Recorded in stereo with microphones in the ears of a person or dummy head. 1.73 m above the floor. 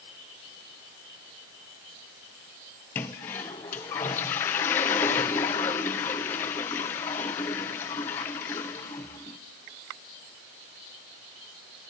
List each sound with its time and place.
3.0 s a toilet flushing: 10° left (ahead or behind), 0.7 m